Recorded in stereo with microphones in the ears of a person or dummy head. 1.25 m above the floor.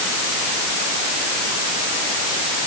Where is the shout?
No shout in this recording.